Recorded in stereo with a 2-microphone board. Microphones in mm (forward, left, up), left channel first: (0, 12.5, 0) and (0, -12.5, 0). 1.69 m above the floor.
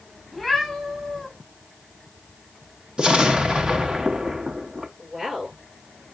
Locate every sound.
0.3 s a cat meowing: 10° right (ahead or behind), 5.5 m
3.0 s an explosion: 35° right (ahead or behind), 1.0 m
5.0 s a woman speaking: 30° right (ahead or behind), 8 m